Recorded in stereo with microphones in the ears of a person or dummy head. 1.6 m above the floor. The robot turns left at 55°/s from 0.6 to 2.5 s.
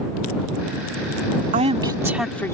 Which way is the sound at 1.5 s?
140° right.